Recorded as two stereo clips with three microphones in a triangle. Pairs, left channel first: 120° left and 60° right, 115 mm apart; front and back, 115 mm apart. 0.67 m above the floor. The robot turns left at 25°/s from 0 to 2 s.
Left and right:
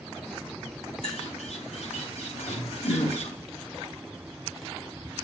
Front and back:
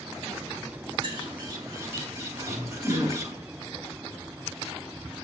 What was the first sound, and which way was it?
A bird, 140° left.